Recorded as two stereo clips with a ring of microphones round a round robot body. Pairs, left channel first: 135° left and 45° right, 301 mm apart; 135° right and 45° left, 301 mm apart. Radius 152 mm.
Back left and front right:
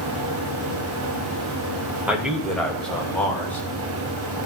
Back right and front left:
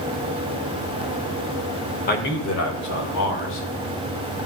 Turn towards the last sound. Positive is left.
turn(degrees=-145)